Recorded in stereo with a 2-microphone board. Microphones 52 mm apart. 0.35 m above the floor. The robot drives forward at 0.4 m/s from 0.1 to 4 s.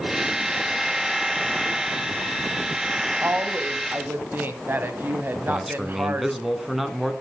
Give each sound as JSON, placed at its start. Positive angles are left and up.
{"t": 3.2, "sound": "a woman speaking", "side_deg": -45, "distance_m": 2.0}
{"t": 5.3, "sound": "a man speaking", "side_deg": 0, "distance_m": 2.5}